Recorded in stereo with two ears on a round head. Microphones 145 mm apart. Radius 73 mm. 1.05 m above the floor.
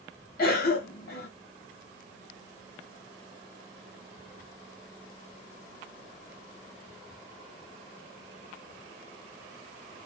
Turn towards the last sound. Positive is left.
turn(degrees=65)  # may be behind; listen again after turning